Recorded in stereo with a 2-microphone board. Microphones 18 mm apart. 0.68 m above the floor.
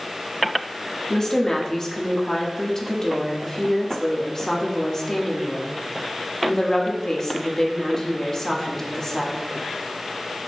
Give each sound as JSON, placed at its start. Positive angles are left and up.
{"t": 1.1, "sound": "a woman speaking", "side_deg": 25, "distance_m": 0.8}